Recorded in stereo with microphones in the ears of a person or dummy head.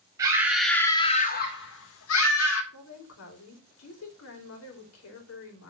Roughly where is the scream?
Centre.